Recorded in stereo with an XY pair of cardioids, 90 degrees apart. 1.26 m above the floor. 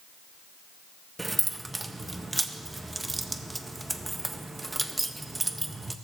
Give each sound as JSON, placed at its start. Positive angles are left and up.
{"t": 1.2, "sound": "keys jangling", "azimuth_deg": -20, "distance_m": 0.9}